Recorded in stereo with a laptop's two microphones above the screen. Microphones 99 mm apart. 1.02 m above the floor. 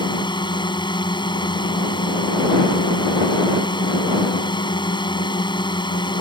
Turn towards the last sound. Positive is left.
turn(degrees=55)  # may be behind; listen again after turning